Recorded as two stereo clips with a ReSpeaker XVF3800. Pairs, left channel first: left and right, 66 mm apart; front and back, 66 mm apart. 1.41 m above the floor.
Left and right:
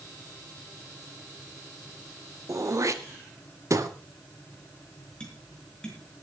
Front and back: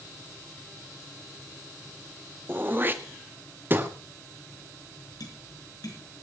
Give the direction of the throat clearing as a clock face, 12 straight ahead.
4 o'clock.